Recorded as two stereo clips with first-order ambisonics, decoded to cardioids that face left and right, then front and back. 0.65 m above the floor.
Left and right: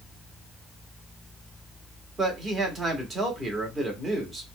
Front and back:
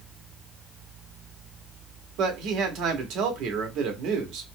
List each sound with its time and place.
2.2 s a man speaking: 160° right, 0.9 m